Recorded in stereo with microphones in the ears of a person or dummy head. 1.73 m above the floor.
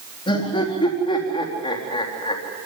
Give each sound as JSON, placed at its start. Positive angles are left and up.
{"t": 0.3, "sound": "laughter", "side_deg": 25, "distance_m": 4.0}